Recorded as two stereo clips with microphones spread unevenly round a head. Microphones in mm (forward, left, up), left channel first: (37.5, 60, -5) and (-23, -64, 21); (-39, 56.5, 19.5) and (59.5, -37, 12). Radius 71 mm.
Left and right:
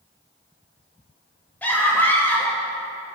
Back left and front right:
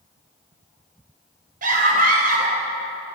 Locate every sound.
1.6 s a scream: 15° right, 3.5 m